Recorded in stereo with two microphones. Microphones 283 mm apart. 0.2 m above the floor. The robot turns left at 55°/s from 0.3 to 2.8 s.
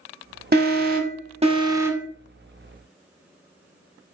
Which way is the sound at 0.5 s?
90° right.